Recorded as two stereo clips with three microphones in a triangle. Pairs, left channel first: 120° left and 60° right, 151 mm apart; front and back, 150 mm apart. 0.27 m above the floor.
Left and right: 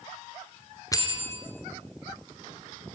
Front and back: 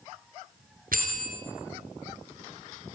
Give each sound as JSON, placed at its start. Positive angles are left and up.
{"t": 0.9, "sound": "a bell", "azimuth_deg": -175, "distance_m": 2.5}